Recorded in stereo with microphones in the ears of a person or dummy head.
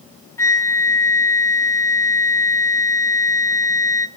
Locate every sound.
0.4 s a flute: 10° left (ahead or behind), 1.3 m